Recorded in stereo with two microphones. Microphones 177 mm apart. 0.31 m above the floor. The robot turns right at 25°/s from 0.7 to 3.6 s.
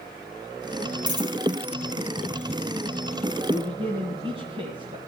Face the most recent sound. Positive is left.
turn(degrees=-30)  # may be behind; listen again after turning